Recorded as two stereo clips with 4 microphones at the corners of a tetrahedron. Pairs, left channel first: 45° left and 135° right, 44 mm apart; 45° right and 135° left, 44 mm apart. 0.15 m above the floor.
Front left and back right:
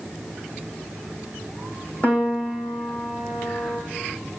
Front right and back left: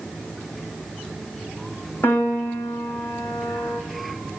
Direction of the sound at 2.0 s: 10° right.